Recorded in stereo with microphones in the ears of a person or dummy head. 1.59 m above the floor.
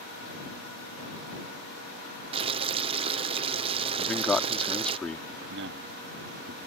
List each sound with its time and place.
2.3 s boiling: 30° right (ahead or behind)
4.0 s a man speaking: 5° left (ahead or behind)
5.4 s a man speaking: 60° right (ahead or behind)